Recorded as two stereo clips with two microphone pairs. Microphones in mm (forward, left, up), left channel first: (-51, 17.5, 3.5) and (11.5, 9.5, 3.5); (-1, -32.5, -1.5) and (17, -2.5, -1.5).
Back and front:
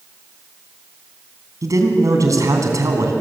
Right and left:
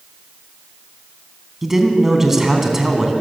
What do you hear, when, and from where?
1.6 s a man speaking: 20° right, 3 m